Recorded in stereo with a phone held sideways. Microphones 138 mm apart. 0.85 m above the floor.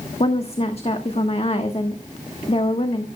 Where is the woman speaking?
45° left (ahead or behind), 1.2 m.